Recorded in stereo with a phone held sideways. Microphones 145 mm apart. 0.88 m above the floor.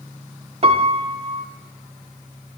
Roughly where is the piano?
Right.